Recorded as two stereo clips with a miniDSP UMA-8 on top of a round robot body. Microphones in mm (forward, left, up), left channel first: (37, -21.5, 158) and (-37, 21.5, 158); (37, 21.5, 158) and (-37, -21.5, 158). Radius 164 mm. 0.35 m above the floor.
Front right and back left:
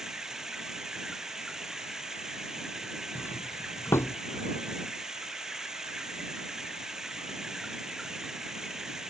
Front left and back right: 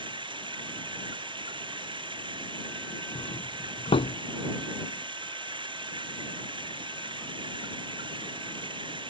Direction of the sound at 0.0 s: 125° right.